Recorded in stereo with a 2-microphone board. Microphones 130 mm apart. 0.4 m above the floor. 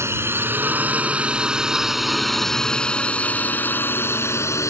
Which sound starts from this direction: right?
A drone, at 0.0 s.